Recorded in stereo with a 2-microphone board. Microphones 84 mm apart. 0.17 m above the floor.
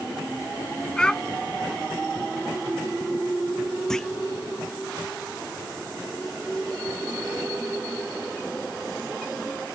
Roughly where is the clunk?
Centre.